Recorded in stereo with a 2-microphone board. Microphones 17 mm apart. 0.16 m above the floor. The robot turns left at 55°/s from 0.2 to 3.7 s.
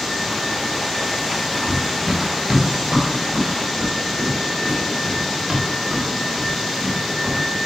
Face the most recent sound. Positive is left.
turn(degrees=-55)  # may be behind; listen again after turning